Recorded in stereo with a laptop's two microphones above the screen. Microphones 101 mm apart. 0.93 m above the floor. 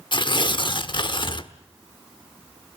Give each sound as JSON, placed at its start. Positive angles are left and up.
{"t": 0.1, "sound": "tearing paper", "side_deg": 50, "distance_m": 1.2}